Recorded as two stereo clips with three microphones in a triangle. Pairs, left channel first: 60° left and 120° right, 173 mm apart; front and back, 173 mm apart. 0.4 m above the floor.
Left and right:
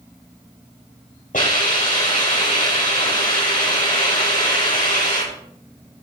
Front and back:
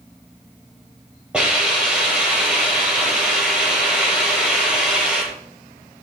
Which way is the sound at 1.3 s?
95° left.